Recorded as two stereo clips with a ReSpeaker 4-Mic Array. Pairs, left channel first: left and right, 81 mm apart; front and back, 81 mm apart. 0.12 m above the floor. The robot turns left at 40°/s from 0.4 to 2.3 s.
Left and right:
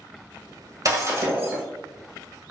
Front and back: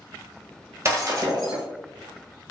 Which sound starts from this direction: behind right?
Breaking glass, at 0.8 s.